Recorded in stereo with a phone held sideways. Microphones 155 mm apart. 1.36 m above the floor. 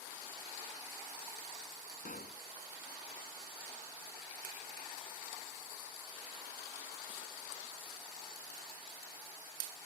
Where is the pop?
70° left (ahead or behind).